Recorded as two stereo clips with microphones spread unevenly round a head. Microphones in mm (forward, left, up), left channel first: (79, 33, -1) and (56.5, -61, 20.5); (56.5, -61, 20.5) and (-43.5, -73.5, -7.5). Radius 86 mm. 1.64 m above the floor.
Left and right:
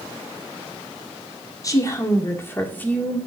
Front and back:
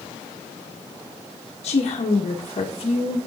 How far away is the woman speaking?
About 1.8 m.